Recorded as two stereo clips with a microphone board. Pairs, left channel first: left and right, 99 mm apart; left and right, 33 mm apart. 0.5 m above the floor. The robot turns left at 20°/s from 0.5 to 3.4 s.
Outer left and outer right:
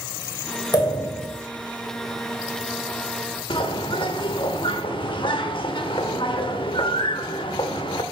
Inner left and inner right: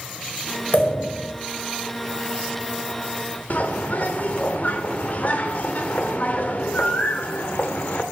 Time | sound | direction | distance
0.7 | a pop | 45° left (ahead or behind) | 1.7 m
3.5 | a bird | 55° left (ahead or behind) | 0.9 m